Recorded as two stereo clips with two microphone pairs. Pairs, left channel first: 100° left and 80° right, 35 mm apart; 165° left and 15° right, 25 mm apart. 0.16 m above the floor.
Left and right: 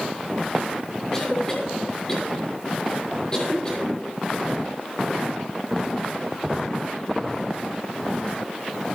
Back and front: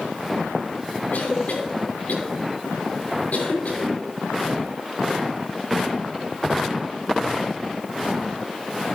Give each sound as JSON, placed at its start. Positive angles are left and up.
{"t": 1.1, "sound": "a cough", "azimuth_deg": 160, "distance_m": 6.5}